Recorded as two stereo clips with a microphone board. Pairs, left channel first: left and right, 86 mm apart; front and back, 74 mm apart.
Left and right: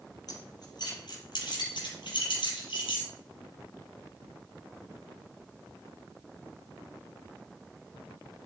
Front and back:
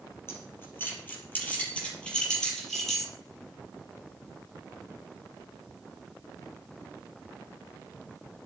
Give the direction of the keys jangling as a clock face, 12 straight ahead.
10 o'clock.